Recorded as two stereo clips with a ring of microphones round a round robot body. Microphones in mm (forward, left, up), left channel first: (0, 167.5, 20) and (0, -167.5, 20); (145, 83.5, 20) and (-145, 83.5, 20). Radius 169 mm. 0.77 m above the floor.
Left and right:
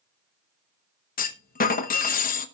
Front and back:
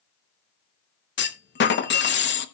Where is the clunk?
35° left, 1.2 m.